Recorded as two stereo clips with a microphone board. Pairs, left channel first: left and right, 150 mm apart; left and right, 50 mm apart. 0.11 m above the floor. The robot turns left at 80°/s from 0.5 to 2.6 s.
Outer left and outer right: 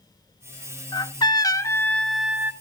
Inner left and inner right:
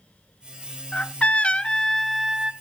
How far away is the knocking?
No knocking in this recording.